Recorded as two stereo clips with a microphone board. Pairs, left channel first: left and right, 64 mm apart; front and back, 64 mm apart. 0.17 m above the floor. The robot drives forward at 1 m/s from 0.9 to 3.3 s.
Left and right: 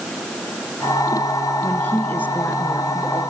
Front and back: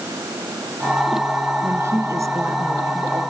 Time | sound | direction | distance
1.6 | a woman speaking | 145° left | 2.5 m